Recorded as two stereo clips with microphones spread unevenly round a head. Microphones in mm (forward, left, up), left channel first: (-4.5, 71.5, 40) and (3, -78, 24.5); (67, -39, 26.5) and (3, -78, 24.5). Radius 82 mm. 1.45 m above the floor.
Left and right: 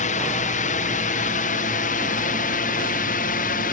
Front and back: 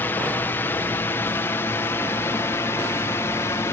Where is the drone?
95° left; by 3.7 s 90° left.